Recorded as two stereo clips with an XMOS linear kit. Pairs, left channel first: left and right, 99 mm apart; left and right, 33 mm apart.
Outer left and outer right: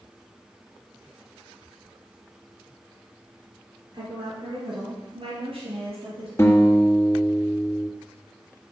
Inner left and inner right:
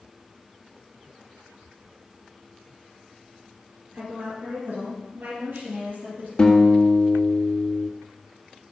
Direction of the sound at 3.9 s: 50° right (ahead or behind).